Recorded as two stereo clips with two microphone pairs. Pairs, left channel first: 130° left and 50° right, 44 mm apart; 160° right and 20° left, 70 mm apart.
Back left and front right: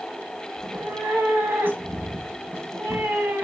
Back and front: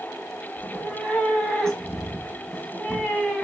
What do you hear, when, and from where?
0.6 s a cat meowing: 80° right, 1.3 m